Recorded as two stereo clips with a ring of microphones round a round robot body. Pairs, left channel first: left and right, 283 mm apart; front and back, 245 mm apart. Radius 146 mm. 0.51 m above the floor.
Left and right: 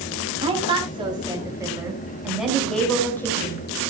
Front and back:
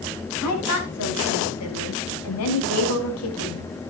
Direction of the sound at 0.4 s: 20° right.